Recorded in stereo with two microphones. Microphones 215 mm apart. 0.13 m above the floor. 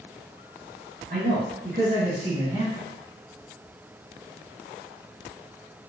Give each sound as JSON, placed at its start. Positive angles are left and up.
{"t": 1.1, "sound": "a man speaking", "side_deg": -50, "distance_m": 1.9}